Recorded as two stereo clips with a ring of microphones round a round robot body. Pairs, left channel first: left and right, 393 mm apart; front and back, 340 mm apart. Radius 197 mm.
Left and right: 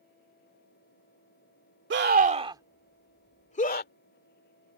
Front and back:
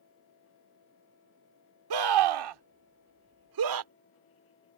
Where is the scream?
150° right; by 3.9 s 155° left.